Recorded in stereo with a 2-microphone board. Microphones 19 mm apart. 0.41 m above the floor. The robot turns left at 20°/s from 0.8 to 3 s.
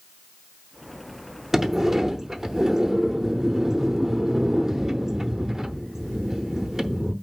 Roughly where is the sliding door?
Centre.